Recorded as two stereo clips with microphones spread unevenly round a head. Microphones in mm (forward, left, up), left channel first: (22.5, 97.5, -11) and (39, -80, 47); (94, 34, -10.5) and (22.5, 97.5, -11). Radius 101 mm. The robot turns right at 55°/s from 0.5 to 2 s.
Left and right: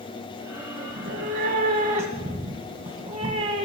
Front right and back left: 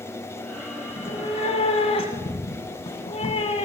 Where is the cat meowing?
100° right, 1.9 m; by 3.6 s 40° right, 1.9 m.